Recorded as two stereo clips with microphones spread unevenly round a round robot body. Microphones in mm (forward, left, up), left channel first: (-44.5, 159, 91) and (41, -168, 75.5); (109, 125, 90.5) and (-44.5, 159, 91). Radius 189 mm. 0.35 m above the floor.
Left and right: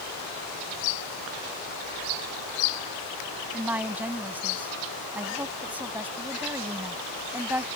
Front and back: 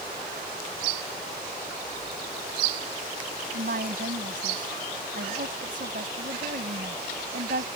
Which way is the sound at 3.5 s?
160° right.